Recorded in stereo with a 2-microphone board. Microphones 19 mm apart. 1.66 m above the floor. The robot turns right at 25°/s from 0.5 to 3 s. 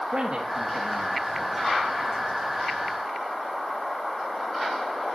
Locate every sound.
0.1 s a man speaking: 60° right (ahead or behind), 1.3 m; by 1.7 s 35° right (ahead or behind), 1.3 m